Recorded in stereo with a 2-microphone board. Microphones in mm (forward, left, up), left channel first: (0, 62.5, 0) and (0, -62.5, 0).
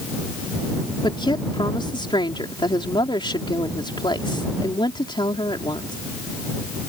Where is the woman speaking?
35° left (ahead or behind).